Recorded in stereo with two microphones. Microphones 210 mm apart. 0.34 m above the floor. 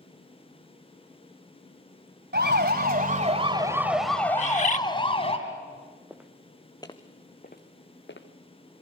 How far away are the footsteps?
About 1.9 m.